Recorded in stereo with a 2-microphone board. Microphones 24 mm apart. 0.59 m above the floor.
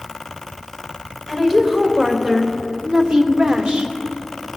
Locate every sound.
1.3 s a woman speaking: 5° left (ahead or behind), 1.9 m; by 3.9 s 40° right (ahead or behind), 1.3 m